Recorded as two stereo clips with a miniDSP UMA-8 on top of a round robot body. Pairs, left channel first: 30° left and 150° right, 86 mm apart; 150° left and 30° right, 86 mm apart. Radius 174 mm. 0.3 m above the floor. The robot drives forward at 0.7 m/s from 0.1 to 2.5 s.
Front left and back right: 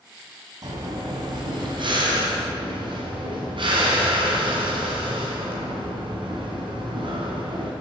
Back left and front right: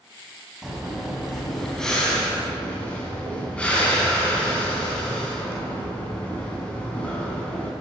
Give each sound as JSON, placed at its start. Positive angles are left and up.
{"t": 0.6, "sound": "breathing", "azimuth_deg": -115, "distance_m": 3.0}